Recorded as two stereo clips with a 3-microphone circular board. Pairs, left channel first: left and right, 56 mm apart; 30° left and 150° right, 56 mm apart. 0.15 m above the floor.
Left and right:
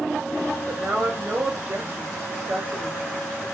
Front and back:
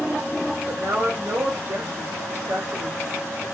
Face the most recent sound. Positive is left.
turn(degrees=-150)